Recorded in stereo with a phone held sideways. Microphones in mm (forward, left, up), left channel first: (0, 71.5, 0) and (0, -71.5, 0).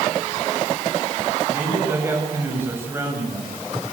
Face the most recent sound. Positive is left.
turn(degrees=-15)  # may be behind; listen again after turning